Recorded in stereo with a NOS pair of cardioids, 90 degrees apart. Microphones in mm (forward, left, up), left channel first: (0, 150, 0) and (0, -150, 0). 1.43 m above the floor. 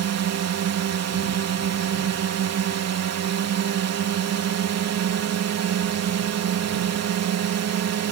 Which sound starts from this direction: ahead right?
A drone, at 0.0 s.